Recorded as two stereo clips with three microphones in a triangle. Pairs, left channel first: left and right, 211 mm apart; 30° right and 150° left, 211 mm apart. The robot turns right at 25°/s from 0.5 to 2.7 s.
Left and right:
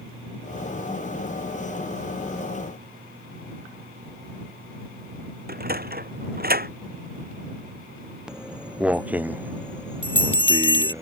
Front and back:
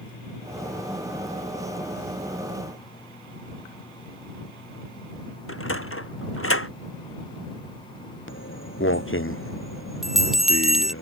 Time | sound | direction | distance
5.5 | a sliding door | 45° right | ?
8.3 | footsteps | 5° right | ?
10.0 | a bell | 60° left | ?